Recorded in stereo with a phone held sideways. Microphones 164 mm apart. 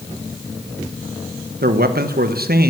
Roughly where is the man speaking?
Right.